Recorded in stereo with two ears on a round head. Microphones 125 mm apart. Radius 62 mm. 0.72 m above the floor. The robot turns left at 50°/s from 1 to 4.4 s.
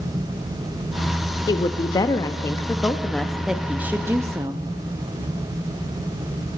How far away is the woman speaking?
About 0.5 m.